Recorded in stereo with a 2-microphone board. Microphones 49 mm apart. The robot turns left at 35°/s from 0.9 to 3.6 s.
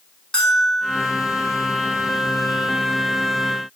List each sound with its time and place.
0.3 s a bell: 10° left (ahead or behind), 7 m; by 1.0 s 15° left (ahead or behind), 7 m